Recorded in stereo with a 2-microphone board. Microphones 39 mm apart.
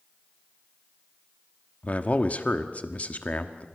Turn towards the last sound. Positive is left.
turn(degrees=35)  # may be behind; listen again after turning